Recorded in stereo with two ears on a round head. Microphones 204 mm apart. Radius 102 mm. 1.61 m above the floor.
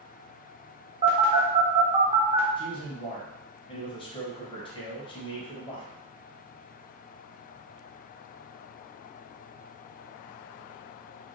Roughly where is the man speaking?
Left.